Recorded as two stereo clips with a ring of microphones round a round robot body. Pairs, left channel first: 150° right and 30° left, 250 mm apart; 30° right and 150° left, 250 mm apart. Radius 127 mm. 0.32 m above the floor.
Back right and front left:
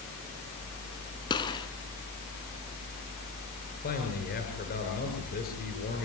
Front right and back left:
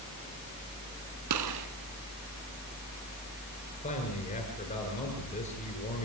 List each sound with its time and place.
1.3 s a gunshot: 135° left, 2.0 m
3.8 s a man speaking: 95° right, 7 m